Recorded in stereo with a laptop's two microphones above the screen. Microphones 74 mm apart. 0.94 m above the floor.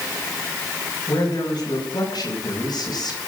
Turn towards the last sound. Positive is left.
turn(degrees=65)  # may be behind; listen again after turning